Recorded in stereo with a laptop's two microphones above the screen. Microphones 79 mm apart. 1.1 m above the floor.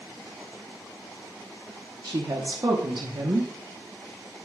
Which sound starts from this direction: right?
A woman speaking, at 2.0 s.